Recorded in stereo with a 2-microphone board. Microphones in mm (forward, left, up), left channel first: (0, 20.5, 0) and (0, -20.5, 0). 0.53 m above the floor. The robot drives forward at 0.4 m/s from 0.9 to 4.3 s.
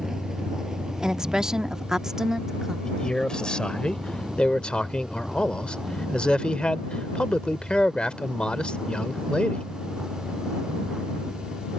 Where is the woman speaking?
15° right (ahead or behind).